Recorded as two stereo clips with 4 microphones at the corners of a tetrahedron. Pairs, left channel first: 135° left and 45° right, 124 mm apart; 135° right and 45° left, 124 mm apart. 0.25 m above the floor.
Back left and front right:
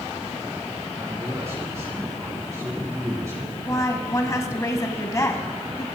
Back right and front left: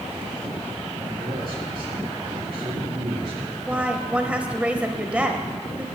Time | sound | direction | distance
1.0 | a man speaking | 15° left | 2 m
3.7 | a woman speaking | 115° left | 1.2 m